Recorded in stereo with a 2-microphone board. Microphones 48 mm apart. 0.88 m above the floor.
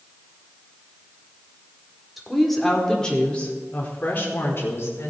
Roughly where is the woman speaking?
Centre.